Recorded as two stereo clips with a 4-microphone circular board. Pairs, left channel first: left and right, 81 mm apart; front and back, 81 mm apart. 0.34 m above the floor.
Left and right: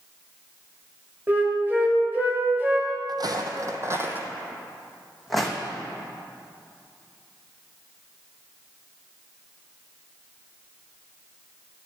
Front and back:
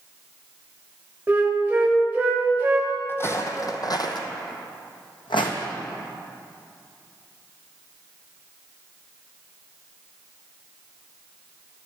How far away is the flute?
About 1.6 m.